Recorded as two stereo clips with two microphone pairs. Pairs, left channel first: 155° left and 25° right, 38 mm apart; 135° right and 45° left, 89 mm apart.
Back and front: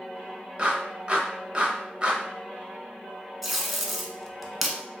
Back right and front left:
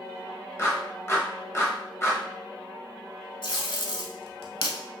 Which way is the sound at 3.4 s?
115° right.